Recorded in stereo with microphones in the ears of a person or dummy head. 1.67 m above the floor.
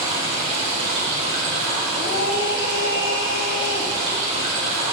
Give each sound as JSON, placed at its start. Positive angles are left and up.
{"t": 0.0, "sound": "running water", "side_deg": -35, "distance_m": 2.5}
{"t": 1.9, "sound": "a scream", "side_deg": 65, "distance_m": 2.0}